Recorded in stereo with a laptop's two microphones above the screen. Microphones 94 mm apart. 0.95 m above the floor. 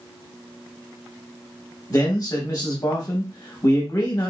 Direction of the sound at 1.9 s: 40° left (ahead or behind).